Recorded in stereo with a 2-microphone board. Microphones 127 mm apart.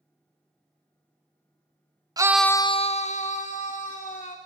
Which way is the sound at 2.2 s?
30° right (ahead or behind).